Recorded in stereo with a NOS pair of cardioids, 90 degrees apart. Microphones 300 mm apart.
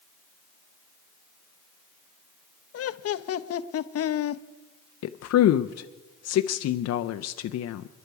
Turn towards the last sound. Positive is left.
turn(degrees=60)